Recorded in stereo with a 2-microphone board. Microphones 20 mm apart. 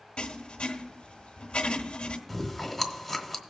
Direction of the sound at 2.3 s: 5° left (ahead or behind).